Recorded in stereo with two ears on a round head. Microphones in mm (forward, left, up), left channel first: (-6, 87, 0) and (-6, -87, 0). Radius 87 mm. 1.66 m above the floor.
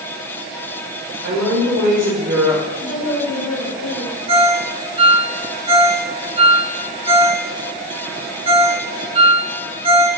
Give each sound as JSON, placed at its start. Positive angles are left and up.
{"t": 1.2, "sound": "a woman speaking", "side_deg": -55, "distance_m": 0.9}
{"t": 2.8, "sound": "a woman speaking", "side_deg": 60, "distance_m": 2.0}
{"t": 4.3, "sound": "a ringtone", "side_deg": -30, "distance_m": 0.6}